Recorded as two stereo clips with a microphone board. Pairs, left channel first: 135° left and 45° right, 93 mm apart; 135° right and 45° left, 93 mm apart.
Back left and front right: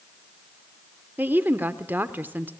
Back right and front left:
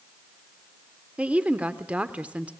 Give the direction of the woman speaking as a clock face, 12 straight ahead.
12 o'clock.